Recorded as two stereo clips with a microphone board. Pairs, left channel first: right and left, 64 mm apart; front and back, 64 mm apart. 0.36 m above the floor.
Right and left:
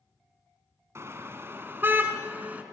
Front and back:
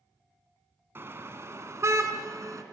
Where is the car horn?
130° left, 2 m; by 2.6 s 150° left, 2.5 m.